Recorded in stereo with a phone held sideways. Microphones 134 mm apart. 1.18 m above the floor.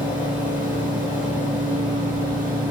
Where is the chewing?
I don't hear chewing.